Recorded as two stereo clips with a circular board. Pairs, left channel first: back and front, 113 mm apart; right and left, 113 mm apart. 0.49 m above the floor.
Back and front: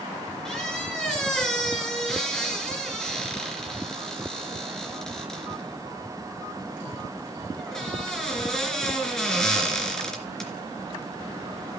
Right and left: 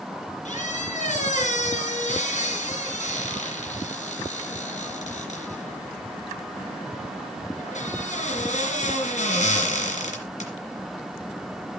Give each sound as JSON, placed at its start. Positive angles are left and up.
{"t": 0.5, "sound": "a squeak", "azimuth_deg": -95, "distance_m": 3.0}